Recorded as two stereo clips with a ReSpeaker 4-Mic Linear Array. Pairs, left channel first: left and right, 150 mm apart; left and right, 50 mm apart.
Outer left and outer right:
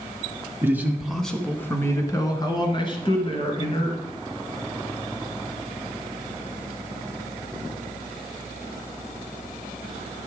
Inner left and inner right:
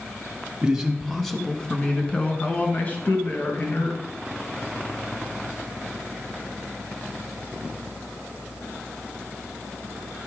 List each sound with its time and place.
0.6 s a man speaking: 15° right (ahead or behind), 1.2 m; by 4.0 s 40° left (ahead or behind), 2.5 m